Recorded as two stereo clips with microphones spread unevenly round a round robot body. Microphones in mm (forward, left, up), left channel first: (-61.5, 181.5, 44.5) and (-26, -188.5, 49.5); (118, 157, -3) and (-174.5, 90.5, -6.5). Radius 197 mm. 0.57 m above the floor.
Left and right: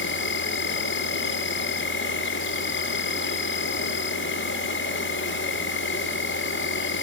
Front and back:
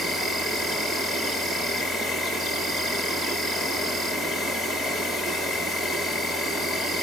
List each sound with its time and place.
0.0 s an insect: 105° left, 2 m